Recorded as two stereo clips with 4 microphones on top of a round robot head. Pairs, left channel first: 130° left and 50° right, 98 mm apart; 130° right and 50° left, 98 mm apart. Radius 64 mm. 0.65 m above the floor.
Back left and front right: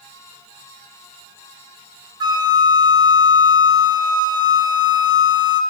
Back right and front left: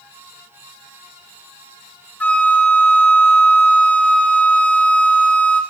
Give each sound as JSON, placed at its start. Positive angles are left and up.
{"t": 2.2, "sound": "a flute", "azimuth_deg": -60, "distance_m": 1.0}